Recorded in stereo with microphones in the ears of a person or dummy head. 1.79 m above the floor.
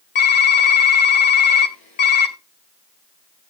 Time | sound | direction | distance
0.1 | typing on a keyboard | 30° left (ahead or behind) | 1.8 m